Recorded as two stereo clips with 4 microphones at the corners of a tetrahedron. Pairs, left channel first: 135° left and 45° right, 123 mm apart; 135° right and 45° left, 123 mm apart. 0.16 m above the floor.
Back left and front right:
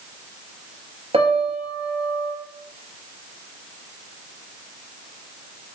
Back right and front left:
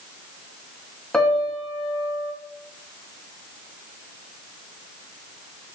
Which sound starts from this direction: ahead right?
A piano, at 1.1 s.